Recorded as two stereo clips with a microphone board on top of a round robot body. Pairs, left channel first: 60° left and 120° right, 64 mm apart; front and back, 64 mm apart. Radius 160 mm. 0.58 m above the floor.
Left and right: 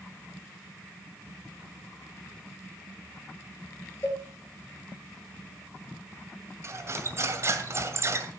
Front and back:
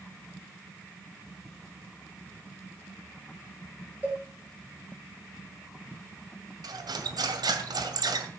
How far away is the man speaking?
I don't hear a man speaking.